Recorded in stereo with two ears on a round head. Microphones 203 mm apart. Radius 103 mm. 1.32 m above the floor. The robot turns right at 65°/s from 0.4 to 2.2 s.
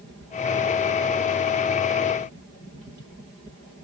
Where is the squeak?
I don't hear a squeak.